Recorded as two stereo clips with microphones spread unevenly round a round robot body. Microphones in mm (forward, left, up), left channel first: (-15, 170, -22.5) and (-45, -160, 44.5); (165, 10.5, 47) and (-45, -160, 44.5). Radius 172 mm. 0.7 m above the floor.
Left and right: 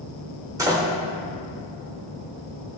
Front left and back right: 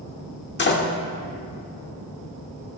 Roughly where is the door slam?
Ahead.